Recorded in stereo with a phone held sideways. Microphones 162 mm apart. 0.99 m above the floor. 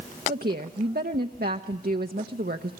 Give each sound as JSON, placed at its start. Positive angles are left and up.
{"t": 0.3, "sound": "a woman speaking", "side_deg": -70, "distance_m": 0.9}